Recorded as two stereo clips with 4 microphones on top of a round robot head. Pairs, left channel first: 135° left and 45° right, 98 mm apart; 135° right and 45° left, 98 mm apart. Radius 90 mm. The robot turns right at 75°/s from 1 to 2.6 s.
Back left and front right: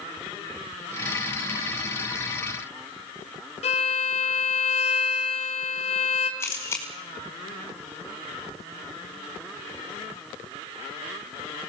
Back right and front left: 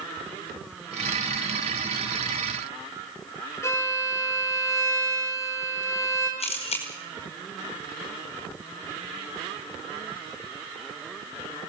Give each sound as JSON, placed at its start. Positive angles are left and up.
{"t": 3.6, "sound": "a violin", "azimuth_deg": 160, "distance_m": 3.0}
{"t": 6.4, "sound": "a camera shutter", "azimuth_deg": -160, "distance_m": 5.0}